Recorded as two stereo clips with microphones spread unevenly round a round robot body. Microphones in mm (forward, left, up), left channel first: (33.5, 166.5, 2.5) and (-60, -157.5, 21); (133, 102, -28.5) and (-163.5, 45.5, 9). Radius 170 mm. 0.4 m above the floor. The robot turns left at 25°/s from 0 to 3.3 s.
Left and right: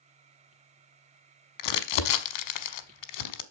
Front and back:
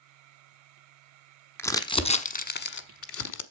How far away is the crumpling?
About 1.0 m.